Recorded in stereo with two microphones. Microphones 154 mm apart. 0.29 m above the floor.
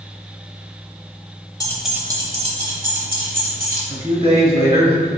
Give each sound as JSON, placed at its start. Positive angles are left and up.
{"t": 1.6, "sound": "keys jangling", "side_deg": 20, "distance_m": 0.8}
{"t": 3.9, "sound": "a man speaking", "side_deg": -40, "distance_m": 1.7}